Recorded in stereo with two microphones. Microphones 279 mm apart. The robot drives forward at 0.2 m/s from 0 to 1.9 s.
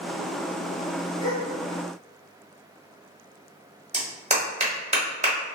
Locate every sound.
1.2 s a gasp: 20° left (ahead or behind), 1.5 m
3.9 s a clap: 25° right (ahead or behind), 1.1 m